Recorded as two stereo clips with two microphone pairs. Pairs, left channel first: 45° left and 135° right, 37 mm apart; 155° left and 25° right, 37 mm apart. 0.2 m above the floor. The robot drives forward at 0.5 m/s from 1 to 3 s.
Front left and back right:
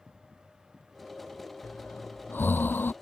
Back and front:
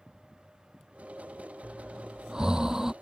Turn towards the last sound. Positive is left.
turn(degrees=50)